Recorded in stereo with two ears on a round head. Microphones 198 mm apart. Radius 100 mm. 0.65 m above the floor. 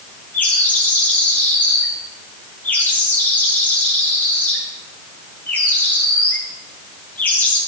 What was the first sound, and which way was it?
A bird, 10° left (ahead or behind).